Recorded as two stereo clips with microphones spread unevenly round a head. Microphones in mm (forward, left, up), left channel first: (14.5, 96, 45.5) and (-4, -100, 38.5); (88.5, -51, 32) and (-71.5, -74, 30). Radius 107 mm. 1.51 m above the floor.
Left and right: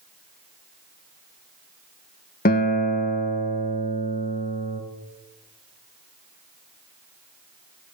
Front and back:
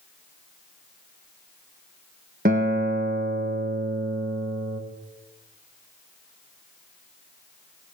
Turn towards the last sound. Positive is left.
turn(degrees=135)